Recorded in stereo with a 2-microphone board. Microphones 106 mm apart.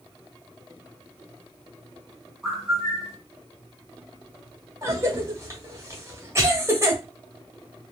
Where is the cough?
25° right (ahead or behind), 1.2 m.